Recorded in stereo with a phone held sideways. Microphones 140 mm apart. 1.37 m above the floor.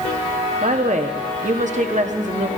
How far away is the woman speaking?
About 0.9 m.